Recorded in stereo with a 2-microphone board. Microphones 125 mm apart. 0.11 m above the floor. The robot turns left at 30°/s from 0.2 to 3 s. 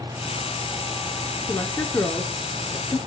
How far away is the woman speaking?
About 1.7 m.